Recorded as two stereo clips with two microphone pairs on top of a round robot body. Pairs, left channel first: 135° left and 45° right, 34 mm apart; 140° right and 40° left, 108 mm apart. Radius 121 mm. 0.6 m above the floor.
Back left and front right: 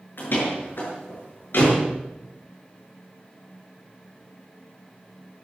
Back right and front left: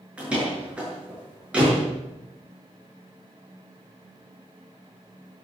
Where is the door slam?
120° left, 7 m.